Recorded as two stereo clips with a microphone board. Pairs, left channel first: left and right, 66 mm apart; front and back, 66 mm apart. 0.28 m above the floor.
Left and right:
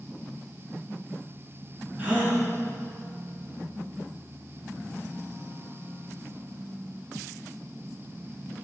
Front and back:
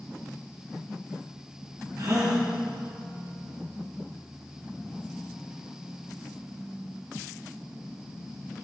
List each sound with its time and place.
2.0 s a gasp: 155° right, 2 m